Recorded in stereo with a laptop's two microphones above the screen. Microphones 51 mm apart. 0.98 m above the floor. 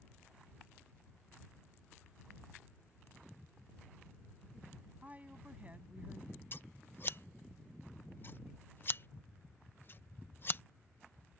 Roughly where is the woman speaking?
Right.